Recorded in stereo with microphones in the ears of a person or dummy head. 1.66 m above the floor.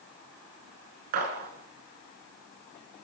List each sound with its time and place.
1.1 s a gunshot: 50° right (ahead or behind), 4.5 m